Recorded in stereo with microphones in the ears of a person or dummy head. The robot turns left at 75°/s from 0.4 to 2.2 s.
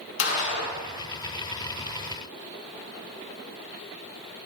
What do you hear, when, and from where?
0.2 s a gunshot: 75° left (ahead or behind), 1.9 m; by 0.8 s 45° left (ahead or behind), 1.9 m